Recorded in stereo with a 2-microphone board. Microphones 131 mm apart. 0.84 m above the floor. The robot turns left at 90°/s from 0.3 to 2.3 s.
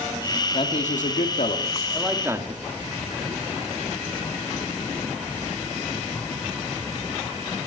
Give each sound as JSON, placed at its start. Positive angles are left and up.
{"t": 0.5, "sound": "a man speaking", "azimuth_deg": 140, "distance_m": 1.7}